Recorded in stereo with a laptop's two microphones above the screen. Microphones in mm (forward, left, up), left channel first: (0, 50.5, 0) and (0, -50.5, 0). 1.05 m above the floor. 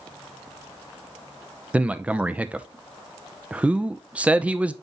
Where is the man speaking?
10° right (ahead or behind), 0.6 m.